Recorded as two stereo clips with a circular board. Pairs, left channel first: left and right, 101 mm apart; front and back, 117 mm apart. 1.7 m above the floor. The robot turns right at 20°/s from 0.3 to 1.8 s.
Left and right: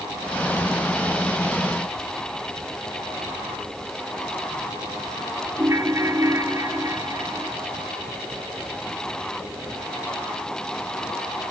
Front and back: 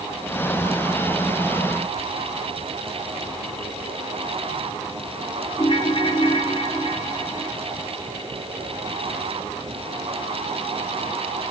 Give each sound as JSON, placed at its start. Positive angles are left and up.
{"t": 5.6, "sound": "a ringtone", "azimuth_deg": -35, "distance_m": 1.7}